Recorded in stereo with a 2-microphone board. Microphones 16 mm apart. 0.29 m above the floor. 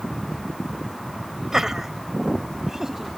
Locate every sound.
1.5 s laughter: 25° right (ahead or behind)